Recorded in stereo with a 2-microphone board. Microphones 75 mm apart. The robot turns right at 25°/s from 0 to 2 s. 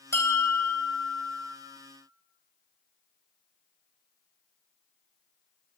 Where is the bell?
95° left, 0.5 m; by 1.6 s 130° left, 0.5 m.